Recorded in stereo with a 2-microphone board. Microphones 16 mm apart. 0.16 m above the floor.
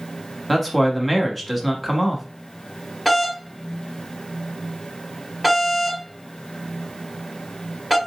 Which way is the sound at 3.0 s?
10° left (ahead or behind).